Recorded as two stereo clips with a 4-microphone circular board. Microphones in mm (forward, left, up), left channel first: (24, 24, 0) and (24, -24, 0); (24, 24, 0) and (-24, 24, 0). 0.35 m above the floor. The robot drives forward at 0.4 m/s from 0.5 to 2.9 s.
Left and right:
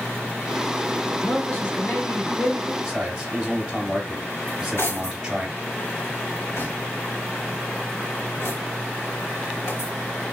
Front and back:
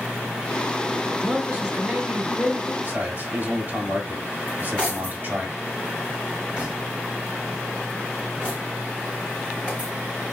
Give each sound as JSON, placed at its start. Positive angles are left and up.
{"t": 1.1, "sound": "a man speaking", "azimuth_deg": 115, "distance_m": 1.8}
{"t": 2.8, "sound": "a man speaking", "azimuth_deg": -165, "distance_m": 1.6}
{"t": 4.5, "sound": "cutlery clinking", "azimuth_deg": 115, "distance_m": 1.7}